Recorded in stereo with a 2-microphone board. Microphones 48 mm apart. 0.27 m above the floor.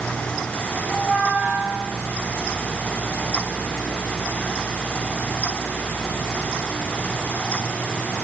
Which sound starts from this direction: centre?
A squeak, at 0.9 s.